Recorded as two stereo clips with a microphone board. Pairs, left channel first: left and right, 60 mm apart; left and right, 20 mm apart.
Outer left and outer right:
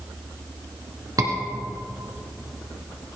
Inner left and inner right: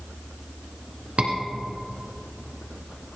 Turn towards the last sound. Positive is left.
turn(degrees=-65)  # may be behind; listen again after turning